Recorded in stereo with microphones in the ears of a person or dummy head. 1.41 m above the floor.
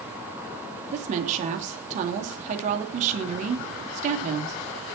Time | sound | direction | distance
0.9 | a woman speaking | 45° right (ahead or behind) | 3 m